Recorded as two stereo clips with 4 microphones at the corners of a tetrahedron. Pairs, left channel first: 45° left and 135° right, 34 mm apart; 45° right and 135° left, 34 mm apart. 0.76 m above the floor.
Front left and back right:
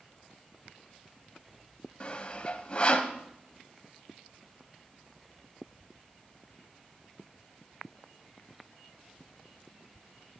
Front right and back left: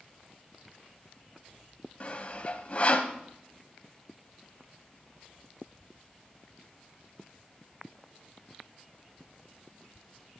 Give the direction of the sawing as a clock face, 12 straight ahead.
12 o'clock.